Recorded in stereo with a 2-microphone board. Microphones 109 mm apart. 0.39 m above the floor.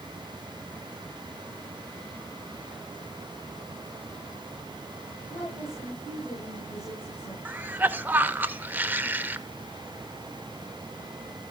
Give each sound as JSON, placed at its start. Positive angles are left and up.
{"t": 5.3, "sound": "a woman speaking", "side_deg": 25, "distance_m": 6.5}
{"t": 7.5, "sound": "a cough", "side_deg": -15, "distance_m": 0.9}